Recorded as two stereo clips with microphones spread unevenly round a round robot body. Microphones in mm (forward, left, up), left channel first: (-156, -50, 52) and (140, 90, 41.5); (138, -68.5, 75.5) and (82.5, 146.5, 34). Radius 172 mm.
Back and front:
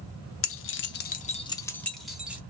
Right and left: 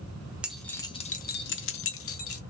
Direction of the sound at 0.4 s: 175° left.